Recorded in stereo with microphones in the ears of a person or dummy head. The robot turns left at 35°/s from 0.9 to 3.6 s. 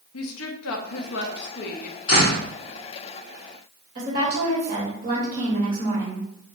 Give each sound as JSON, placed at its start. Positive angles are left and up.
{"t": 0.1, "sound": "a woman speaking", "azimuth_deg": 80, "distance_m": 0.7}
{"t": 2.1, "sound": "a door slam", "side_deg": 35, "distance_m": 1.3}
{"t": 4.0, "sound": "a woman speaking", "side_deg": -45, "distance_m": 2.0}